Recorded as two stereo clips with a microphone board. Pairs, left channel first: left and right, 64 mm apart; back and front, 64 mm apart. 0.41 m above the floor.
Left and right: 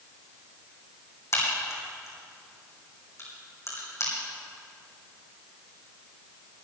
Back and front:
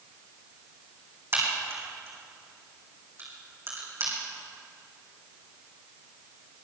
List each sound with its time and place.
1.3 s a crack: 50° left, 5 m